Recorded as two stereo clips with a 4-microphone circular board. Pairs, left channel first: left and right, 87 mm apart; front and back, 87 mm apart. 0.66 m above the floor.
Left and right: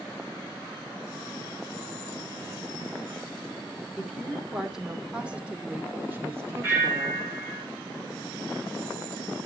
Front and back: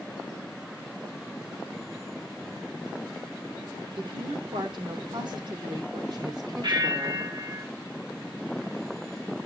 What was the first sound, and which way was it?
A woman speaking, 175° left.